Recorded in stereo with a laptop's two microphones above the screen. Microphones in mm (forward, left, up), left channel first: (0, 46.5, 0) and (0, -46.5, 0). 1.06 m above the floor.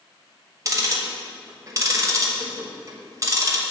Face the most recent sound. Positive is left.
turn(degrees=-35)  # may be behind; listen again after turning